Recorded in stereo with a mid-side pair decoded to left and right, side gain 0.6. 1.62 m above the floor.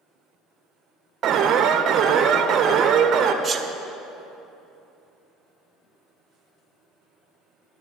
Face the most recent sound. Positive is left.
turn(degrees=-30)